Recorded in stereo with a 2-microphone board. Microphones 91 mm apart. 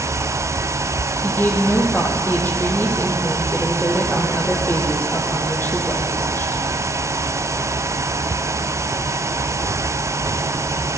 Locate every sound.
1.2 s a woman speaking: 20° left (ahead or behind), 4.5 m